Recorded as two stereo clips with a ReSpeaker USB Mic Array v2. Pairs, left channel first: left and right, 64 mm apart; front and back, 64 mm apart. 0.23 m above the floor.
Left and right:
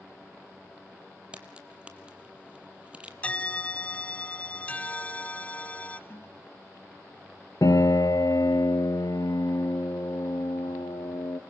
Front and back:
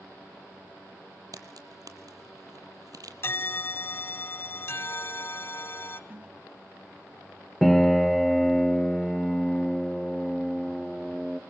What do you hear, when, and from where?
1.3 s a crack: 160° right, 1.2 m
3.2 s a bell: 30° left, 0.7 m
6.1 s a toilet flushing: 120° left, 1.4 m
7.6 s a piano: 90° left, 1.1 m